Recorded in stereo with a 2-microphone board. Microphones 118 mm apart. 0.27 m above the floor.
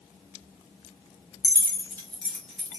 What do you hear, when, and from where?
1.4 s keys jangling: 30° left (ahead or behind), 1.2 m; by 2.8 s 5° right (ahead or behind), 1.7 m